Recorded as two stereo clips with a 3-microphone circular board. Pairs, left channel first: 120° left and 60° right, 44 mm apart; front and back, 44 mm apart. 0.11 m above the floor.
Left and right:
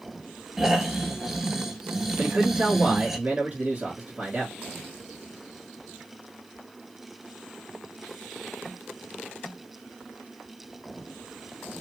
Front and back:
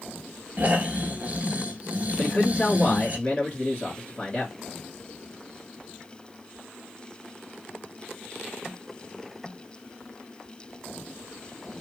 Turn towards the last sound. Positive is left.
turn(degrees=-40)